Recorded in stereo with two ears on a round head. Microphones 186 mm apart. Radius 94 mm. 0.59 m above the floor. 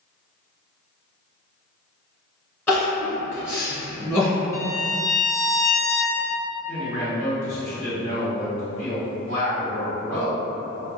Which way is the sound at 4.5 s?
15° left (ahead or behind).